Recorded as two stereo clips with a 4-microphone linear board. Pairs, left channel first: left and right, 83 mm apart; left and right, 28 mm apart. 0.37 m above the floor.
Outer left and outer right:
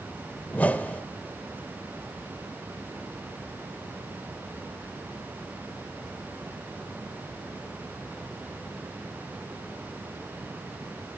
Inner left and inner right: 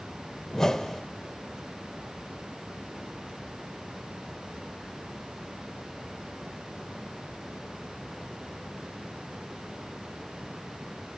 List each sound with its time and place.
0.5 s a whoosh: 20° left (ahead or behind), 0.8 m